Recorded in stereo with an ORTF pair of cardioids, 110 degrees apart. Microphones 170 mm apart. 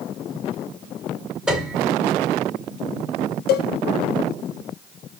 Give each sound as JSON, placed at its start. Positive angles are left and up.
{"t": 1.5, "sound": "a piano", "azimuth_deg": -5, "distance_m": 1.8}
{"t": 3.5, "sound": "a cowbell", "azimuth_deg": 70, "distance_m": 0.8}